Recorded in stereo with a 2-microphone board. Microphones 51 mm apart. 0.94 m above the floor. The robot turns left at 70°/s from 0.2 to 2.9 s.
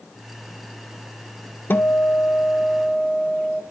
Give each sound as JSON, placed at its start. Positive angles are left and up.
{"t": 1.7, "sound": "a guitar", "azimuth_deg": 105, "distance_m": 0.6}